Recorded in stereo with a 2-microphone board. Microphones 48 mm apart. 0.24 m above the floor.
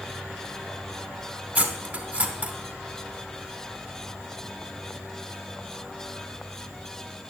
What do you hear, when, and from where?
1.6 s cutlery clinking: 30° right (ahead or behind), 1.0 m